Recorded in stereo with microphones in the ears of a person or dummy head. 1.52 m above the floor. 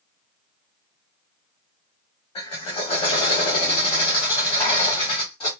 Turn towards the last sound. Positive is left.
turn(degrees=20)  # may be behind; listen again after turning